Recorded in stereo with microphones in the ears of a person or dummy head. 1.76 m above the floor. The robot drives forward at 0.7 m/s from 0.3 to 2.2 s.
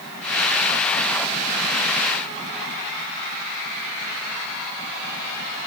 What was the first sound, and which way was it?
Only background noise.